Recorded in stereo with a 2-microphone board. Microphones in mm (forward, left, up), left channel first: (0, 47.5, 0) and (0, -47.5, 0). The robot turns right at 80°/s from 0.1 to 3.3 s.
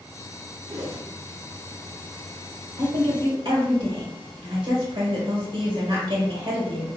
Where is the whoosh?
120° right, 0.7 m; by 1.1 s 90° right, 0.7 m.